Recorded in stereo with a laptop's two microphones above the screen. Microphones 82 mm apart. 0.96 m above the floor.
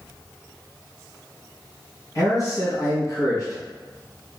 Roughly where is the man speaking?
Left.